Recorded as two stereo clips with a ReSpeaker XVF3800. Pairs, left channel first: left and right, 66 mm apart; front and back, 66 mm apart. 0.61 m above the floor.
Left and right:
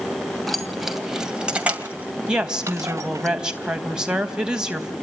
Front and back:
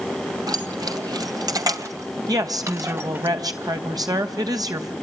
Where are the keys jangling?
175° left, 2.5 m; by 3.3 s 125° right, 2.5 m.